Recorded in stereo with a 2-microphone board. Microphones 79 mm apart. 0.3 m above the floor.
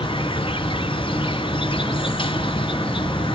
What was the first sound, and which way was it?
An insect, 90° left.